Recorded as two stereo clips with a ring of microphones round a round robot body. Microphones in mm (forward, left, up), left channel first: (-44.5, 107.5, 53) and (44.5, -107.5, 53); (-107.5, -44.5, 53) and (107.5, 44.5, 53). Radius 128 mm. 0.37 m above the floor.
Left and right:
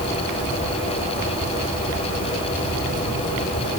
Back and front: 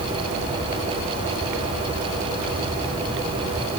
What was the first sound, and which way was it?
Only background noise.